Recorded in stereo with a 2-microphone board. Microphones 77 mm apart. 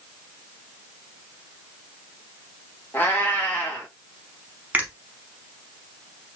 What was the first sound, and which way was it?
A cat meowing, 25° left (ahead or behind).